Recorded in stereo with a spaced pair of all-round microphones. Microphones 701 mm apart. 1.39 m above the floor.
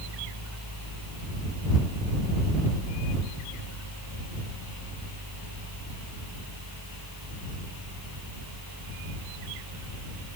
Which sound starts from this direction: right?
A fan, at 0.0 s.